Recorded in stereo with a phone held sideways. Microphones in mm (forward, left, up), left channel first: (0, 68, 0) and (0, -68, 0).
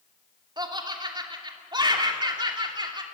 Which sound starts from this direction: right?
Laughter, at 0.6 s.